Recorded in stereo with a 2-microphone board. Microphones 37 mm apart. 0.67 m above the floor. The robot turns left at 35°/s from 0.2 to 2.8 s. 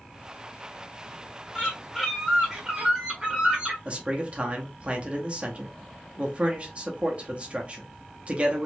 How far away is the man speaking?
About 0.7 m.